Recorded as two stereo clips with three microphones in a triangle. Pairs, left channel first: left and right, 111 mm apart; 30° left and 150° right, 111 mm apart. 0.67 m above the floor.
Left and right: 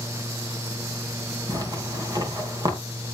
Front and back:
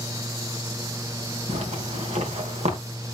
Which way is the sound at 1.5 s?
145° right.